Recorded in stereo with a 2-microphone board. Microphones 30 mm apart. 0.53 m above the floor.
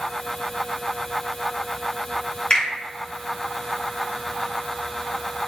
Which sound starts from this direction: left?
A finger snap, at 2.5 s.